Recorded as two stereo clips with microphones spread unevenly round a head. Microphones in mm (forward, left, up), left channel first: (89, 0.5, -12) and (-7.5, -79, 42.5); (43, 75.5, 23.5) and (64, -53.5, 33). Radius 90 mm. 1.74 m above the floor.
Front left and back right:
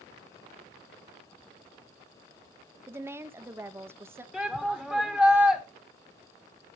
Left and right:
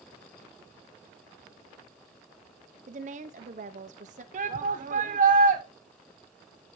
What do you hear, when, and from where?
2.9 s a woman speaking: 95° right, 0.7 m
4.3 s a shout: 55° right, 1.1 m